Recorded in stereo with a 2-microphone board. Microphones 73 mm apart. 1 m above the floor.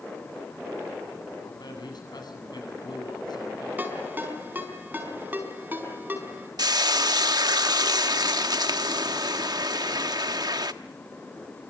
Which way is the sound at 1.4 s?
70° left (ahead or behind).